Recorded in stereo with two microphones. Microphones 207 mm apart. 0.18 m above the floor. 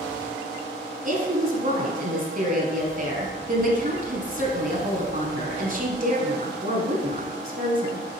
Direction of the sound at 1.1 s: 45° right (ahead or behind).